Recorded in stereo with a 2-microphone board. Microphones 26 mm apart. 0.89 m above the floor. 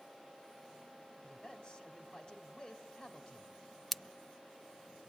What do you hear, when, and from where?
1.2 s a man speaking: 40° left (ahead or behind), 4 m
3.9 s scissors: 10° left (ahead or behind), 0.5 m